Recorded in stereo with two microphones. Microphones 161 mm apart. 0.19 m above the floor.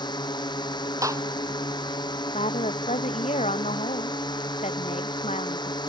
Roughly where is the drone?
Left.